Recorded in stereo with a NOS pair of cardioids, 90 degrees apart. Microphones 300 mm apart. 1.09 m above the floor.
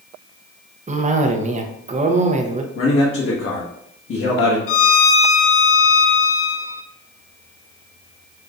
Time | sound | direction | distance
0.9 | a cough | 25° right | 0.7 m
2.8 | a man speaking | 45° left | 1.2 m
4.7 | a violin | 45° left | 0.5 m